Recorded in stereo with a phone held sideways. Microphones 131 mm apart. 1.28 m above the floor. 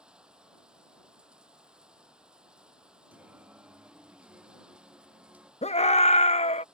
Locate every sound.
0.0 s running water: 5° right (ahead or behind)
3.1 s singing: 10° right (ahead or behind)
5.6 s a scream: 55° left (ahead or behind)